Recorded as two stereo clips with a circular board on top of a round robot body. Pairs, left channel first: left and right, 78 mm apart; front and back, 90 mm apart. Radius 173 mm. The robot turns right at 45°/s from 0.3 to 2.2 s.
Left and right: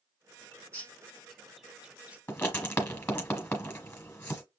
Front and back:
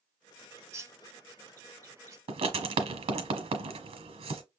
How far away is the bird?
About 1.1 m.